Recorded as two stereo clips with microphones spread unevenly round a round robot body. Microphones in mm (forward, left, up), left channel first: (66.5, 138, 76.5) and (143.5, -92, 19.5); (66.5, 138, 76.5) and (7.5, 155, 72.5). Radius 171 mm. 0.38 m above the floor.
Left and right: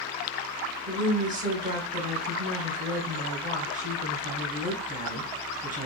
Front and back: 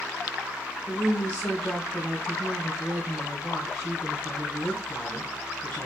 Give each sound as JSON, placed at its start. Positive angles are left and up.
{"t": 0.9, "sound": "a woman speaking", "azimuth_deg": -90, "distance_m": 1.6}